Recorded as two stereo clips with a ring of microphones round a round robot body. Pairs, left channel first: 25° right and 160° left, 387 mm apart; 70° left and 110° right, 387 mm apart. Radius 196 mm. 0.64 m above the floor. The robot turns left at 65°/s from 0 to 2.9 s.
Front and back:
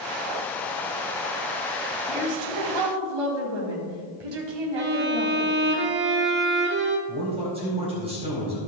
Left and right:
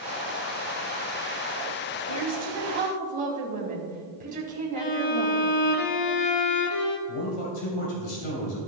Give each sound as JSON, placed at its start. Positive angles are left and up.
{"t": 2.1, "sound": "a woman speaking", "azimuth_deg": -130, "distance_m": 3.5}
{"t": 4.8, "sound": "a violin", "azimuth_deg": 95, "distance_m": 1.4}
{"t": 7.1, "sound": "a man speaking", "azimuth_deg": 80, "distance_m": 3.5}